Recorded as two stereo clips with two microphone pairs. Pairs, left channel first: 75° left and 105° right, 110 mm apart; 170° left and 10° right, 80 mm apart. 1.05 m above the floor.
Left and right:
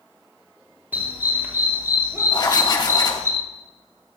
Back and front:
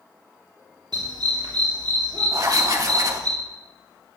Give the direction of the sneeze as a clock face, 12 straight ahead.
I don't hear a sneeze.